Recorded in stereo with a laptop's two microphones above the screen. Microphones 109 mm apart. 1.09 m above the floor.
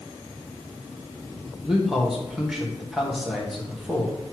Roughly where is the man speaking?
Centre.